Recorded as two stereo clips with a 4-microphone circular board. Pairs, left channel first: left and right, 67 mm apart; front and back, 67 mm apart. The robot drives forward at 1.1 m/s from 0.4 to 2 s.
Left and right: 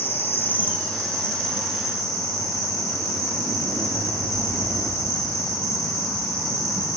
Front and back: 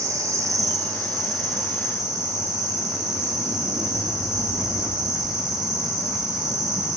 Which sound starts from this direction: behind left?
An insect, at 0.0 s.